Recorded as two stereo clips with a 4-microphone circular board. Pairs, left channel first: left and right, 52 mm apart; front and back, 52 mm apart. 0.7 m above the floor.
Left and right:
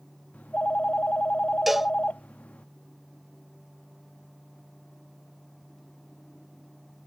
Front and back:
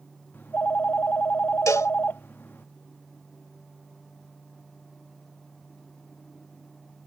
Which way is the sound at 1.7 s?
5° right.